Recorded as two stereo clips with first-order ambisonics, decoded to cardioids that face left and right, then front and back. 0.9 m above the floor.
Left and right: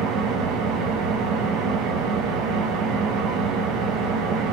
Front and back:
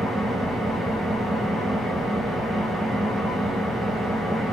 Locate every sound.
0.0 s an engine running: 100° right, 0.8 m